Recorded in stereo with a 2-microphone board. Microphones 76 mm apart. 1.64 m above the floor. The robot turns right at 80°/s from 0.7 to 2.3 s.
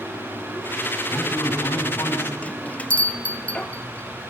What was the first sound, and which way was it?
A man speaking, 65° left.